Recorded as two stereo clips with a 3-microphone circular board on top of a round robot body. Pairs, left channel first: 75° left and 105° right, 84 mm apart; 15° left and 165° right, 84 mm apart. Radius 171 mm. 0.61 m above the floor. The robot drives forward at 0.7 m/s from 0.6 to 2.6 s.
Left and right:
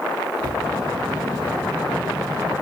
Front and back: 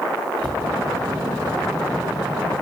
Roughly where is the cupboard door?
Behind right.